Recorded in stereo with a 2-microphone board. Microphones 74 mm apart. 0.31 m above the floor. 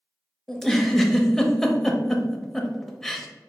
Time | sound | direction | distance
0.5 | a giggle | 5° left (ahead or behind) | 0.5 m